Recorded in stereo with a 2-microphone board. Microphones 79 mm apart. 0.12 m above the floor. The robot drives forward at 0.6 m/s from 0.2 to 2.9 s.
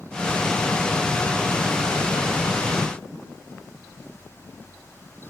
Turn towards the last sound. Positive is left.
No sound to turn to.